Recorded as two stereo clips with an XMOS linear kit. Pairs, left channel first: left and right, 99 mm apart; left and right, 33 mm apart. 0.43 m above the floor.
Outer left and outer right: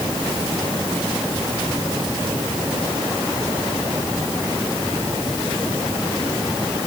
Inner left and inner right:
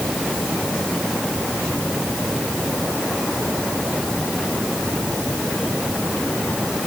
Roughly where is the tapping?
I don't hear tapping.